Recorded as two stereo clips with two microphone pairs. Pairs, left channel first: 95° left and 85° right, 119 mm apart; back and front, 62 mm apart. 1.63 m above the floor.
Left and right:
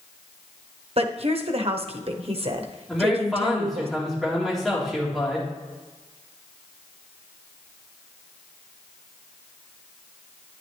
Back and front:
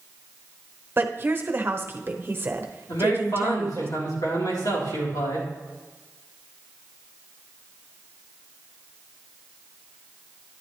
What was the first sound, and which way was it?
A woman speaking, 55° right.